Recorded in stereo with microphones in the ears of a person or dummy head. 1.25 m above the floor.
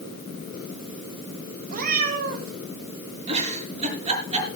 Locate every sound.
1.7 s a cat meowing: 50° right (ahead or behind), 3.5 m
3.3 s a giggle: 35° right (ahead or behind), 5 m